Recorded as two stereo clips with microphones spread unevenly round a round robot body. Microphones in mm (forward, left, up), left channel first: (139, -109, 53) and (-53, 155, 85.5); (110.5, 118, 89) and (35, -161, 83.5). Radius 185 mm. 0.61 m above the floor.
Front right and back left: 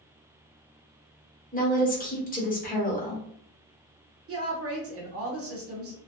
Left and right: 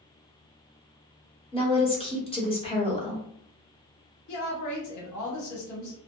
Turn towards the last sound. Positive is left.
turn(degrees=80)